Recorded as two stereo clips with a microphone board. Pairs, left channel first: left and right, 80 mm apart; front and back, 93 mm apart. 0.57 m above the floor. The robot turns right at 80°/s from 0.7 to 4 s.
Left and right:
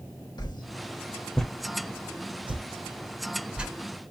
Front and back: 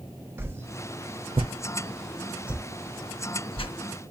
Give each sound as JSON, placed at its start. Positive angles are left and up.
{"t": 0.4, "sound": "a whoosh", "azimuth_deg": 115, "distance_m": 0.6}